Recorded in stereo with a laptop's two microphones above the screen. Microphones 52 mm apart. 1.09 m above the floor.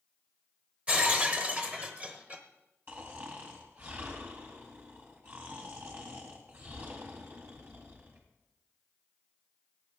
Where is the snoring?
40° right (ahead or behind), 1.9 m.